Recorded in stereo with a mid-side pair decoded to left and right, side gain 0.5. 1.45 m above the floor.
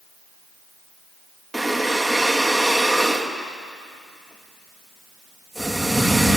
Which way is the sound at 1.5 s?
10° right.